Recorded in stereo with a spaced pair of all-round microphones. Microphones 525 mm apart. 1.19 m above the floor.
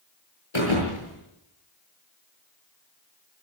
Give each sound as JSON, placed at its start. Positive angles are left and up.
{"t": 0.5, "sound": "a thud", "side_deg": 60, "distance_m": 8.5}